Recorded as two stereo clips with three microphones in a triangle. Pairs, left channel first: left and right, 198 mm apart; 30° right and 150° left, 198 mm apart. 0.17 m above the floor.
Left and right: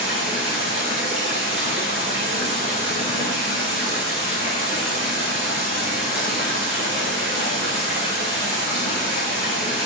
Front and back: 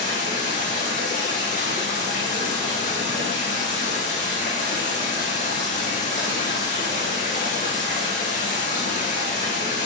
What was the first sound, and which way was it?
Running water, 85° right.